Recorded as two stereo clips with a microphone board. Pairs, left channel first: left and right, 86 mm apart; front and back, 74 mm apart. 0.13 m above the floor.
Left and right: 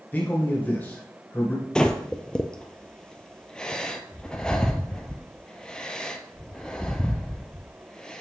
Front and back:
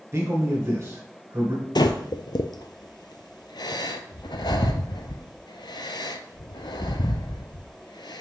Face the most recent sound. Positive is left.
turn(degrees=10)